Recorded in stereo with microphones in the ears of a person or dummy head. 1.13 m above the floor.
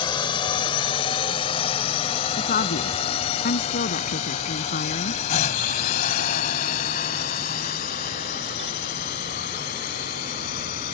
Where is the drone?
20° left (ahead or behind); by 10.9 s 45° left (ahead or behind).